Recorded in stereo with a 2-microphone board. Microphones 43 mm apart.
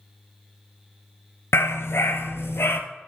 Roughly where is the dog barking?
Left.